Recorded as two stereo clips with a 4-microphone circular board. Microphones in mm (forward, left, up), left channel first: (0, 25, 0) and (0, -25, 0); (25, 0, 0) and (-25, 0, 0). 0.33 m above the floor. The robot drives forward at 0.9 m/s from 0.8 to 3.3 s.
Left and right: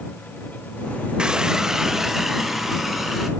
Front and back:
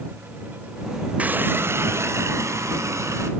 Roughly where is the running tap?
Behind right.